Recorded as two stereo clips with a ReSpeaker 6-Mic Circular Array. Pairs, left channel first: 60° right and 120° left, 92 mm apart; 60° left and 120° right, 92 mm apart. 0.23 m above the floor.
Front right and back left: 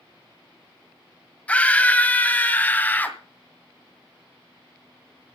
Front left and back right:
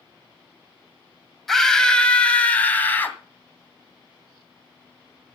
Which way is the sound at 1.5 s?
25° right.